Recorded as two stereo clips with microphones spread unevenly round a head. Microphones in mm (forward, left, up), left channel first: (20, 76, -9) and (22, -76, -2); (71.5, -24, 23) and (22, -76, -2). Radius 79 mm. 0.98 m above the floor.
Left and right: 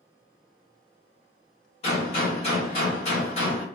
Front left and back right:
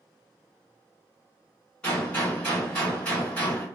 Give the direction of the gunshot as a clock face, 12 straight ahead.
7 o'clock.